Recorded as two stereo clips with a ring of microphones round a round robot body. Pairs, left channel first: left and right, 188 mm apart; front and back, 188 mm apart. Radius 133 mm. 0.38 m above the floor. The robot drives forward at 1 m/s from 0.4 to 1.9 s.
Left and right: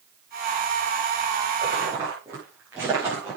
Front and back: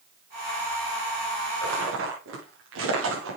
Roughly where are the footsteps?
Behind.